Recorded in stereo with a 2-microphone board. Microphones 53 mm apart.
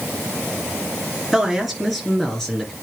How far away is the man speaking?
About 2 m.